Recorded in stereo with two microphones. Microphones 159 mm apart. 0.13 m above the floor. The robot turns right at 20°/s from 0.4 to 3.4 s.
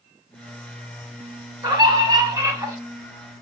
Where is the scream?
25° right (ahead or behind), 1.2 m; by 2.8 s 20° right (ahead or behind), 1.2 m.